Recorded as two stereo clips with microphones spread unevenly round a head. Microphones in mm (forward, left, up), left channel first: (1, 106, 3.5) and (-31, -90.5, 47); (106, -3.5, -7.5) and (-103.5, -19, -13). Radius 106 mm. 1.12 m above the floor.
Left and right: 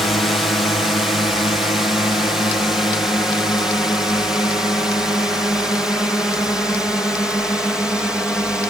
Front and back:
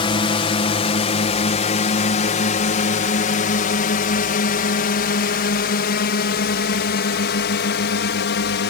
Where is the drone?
20° left; by 8.7 s 5° right.